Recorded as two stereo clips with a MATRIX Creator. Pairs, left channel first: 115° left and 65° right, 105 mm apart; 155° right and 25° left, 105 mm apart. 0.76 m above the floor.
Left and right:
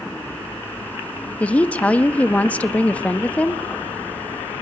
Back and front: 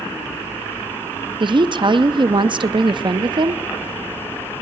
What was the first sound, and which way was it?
A woman speaking, 40° left.